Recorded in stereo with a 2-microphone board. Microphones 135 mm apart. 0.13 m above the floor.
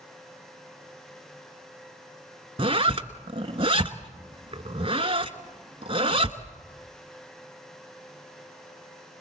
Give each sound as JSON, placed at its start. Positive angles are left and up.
{"t": 2.6, "sound": "a zipper", "side_deg": -45, "distance_m": 1.2}